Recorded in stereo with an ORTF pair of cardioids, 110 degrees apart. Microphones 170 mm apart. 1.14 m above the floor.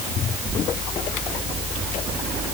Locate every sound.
Only background noise.